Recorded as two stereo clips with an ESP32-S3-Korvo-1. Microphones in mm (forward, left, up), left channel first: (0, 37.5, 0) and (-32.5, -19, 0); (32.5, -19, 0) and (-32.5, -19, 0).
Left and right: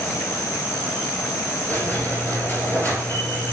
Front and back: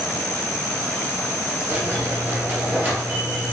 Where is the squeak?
120° left, 2 m.